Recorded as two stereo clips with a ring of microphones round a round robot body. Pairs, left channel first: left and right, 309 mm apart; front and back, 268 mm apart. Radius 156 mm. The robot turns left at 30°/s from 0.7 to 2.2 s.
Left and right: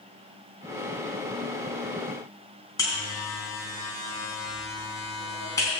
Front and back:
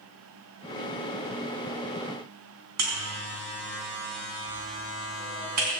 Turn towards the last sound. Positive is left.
turn(degrees=170)